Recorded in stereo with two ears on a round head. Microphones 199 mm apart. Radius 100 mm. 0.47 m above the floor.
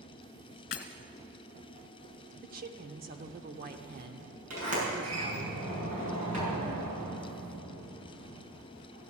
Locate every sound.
0.7 s breaking glass: 45° left (ahead or behind), 1.5 m
2.4 s a woman speaking: 40° right (ahead or behind), 1.0 m
4.5 s a sliding door: 70° right (ahead or behind), 6.5 m